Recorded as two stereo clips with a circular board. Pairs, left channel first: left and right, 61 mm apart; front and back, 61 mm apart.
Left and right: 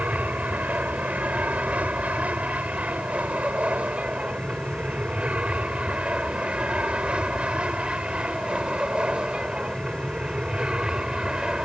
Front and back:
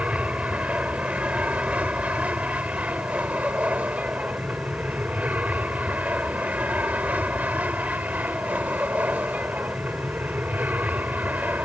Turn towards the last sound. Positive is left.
turn(degrees=-155)